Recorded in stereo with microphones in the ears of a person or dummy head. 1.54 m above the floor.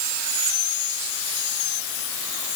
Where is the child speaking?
I don't hear a child speaking.